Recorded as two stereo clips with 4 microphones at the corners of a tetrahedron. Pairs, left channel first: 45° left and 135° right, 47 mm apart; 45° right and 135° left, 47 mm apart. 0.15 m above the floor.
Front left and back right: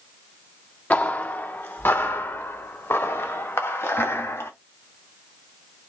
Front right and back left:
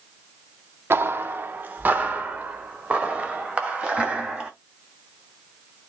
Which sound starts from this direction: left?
Footsteps, at 0.9 s.